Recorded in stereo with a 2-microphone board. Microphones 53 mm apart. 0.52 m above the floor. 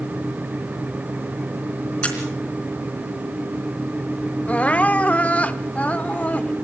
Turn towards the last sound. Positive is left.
turn(degrees=25)  # may be behind; listen again after turning